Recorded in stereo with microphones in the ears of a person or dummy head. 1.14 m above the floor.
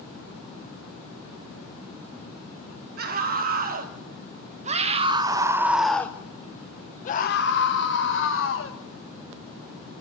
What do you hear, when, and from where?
3.0 s a scream: 50° right (ahead or behind), 1.9 m; by 8.8 s 70° left (ahead or behind), 1.6 m